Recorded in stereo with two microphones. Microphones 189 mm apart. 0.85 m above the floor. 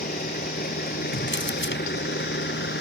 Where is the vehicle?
50° left (ahead or behind); by 2.8 s 75° left (ahead or behind).